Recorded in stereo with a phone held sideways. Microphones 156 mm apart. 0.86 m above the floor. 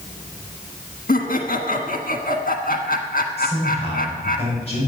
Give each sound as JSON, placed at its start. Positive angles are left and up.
{"t": 1.1, "sound": "laughter", "side_deg": 65, "distance_m": 1.3}
{"t": 3.4, "sound": "a man speaking", "side_deg": 40, "distance_m": 6.0}